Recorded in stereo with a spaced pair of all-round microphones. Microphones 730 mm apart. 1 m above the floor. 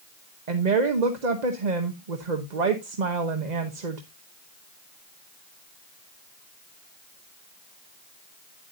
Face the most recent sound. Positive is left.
turn(degrees=-70)  # may be behind; listen again after turning